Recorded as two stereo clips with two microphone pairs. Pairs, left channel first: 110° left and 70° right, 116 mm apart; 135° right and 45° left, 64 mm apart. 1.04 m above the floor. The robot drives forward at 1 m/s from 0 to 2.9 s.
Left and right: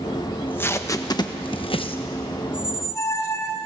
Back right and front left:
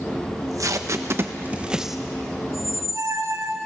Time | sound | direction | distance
0.3 | tape being pulled | 35° left | 1.4 m
2.5 | a squeak | 40° left | 2.0 m